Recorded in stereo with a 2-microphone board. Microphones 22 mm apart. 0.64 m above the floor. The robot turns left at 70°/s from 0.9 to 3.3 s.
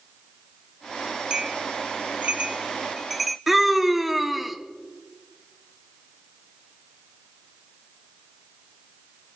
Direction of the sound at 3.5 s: 5° right (ahead or behind).